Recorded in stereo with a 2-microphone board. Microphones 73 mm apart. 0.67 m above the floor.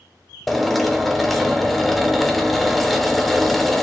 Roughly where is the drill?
Centre.